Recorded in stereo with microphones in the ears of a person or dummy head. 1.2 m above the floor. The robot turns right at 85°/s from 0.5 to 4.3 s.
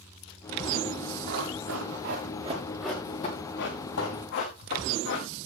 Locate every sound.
1.3 s running footsteps: 50° right (ahead or behind), 7 m; by 5.3 s 65° left (ahead or behind), 6 m